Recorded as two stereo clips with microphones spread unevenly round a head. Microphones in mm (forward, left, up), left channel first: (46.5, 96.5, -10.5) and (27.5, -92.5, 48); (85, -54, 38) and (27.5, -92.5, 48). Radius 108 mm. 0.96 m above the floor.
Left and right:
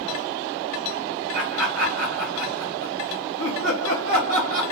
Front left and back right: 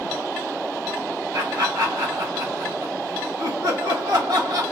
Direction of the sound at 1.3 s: 130° right.